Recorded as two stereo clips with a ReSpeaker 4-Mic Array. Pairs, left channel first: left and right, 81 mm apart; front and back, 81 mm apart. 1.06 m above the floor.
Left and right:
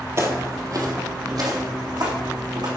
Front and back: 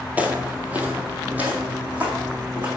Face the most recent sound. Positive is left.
turn(degrees=-110)